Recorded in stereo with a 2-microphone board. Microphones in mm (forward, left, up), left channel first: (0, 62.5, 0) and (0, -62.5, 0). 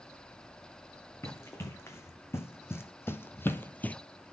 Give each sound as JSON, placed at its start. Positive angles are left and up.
{"t": 1.2, "sound": "running footsteps", "side_deg": 20, "distance_m": 2.0}